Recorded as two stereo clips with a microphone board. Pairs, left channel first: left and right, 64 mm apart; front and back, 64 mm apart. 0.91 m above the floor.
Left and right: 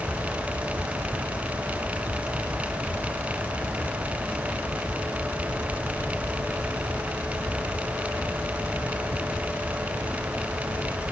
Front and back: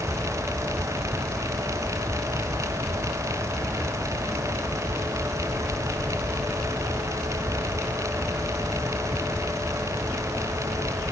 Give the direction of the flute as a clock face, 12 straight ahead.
I don't hear a flute.